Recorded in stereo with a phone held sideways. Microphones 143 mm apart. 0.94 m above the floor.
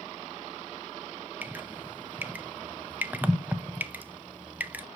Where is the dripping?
10° right (ahead or behind), 0.5 m.